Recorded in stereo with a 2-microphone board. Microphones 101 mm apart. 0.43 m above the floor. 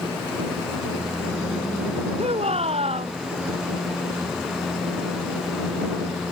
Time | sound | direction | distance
2.2 | a shout | 80° right | ?